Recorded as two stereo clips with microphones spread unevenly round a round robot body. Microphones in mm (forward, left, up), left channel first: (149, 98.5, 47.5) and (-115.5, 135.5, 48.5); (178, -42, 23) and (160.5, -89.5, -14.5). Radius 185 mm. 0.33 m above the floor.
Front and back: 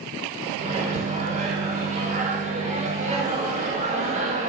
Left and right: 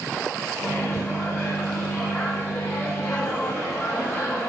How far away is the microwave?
About 0.6 m.